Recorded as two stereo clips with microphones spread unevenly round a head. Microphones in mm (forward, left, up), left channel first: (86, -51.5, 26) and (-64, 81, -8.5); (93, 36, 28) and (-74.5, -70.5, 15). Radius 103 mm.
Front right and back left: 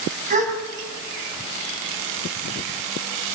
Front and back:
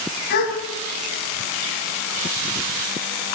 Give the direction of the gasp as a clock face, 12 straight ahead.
9 o'clock.